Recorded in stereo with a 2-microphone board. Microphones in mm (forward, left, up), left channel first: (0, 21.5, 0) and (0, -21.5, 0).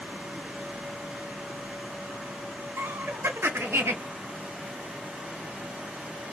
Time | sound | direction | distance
2.8 | laughter | 70° right (ahead or behind) | 0.5 m